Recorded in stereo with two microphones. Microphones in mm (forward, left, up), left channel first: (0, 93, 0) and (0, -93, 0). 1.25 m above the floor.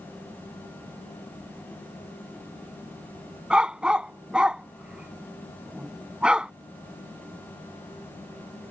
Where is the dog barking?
5° right (ahead or behind).